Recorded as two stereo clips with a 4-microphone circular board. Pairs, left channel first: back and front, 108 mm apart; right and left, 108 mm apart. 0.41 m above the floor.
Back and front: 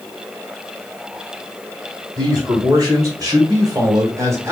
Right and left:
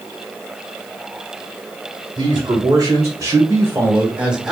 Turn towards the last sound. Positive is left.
turn(degrees=10)